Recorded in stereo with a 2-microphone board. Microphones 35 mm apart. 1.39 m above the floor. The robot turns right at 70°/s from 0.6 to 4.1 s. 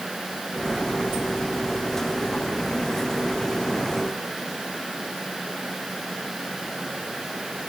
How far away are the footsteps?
I don't hear footsteps.